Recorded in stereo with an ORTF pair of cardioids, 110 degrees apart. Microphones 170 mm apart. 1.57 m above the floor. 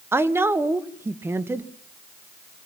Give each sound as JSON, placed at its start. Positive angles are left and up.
{"t": 0.1, "sound": "a woman speaking", "azimuth_deg": -15, "distance_m": 1.8}